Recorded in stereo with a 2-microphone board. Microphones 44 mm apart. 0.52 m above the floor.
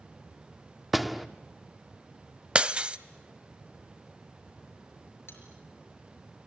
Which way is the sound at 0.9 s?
5° right (ahead or behind).